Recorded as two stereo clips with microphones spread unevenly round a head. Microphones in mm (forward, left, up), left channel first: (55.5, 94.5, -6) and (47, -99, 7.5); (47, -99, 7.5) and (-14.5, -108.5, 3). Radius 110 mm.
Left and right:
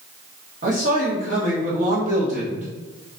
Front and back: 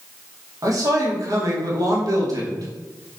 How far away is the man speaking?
About 1.6 m.